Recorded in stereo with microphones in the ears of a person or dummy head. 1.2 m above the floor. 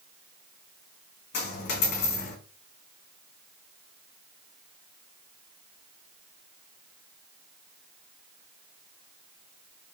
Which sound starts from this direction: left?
A dropped coin, at 1.3 s.